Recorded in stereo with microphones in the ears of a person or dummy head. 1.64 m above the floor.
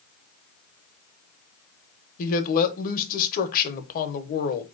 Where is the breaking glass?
No breaking glass in this recording.